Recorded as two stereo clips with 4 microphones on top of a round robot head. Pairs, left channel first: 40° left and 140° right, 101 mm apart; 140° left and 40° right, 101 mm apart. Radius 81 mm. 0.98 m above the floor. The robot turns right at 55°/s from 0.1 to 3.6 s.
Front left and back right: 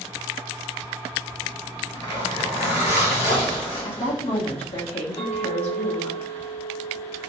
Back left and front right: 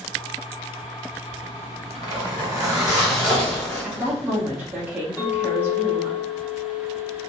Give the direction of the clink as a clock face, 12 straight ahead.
10 o'clock.